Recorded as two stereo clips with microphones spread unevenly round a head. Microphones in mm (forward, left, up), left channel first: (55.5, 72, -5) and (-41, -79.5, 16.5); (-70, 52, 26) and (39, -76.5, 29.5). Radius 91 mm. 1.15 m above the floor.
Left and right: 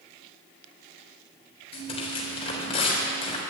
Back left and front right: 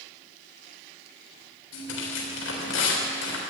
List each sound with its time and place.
1.7 s tearing paper: 120° left, 3.5 m